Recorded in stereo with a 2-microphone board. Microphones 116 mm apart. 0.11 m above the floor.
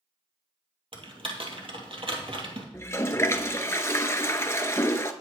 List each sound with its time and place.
0.9 s typing on a keyboard: 50° right (ahead or behind), 2.5 m
2.7 s a toilet flushing: 25° left (ahead or behind), 0.8 m